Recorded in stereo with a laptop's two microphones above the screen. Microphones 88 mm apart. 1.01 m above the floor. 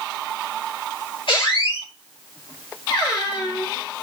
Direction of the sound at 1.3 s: 75° left (ahead or behind).